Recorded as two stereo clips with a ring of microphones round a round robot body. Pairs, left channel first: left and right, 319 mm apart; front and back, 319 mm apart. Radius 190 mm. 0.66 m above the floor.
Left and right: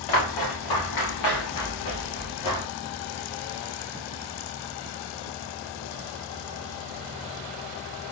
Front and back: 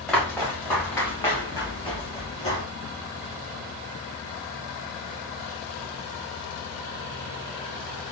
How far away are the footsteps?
About 3.5 m.